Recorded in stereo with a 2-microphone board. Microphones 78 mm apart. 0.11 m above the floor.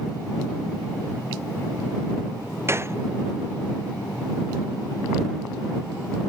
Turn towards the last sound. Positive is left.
turn(degrees=-35)  # may be behind; listen again after turning